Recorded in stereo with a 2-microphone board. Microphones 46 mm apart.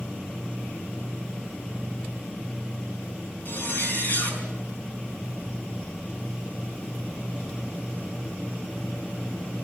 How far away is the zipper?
About 5 m.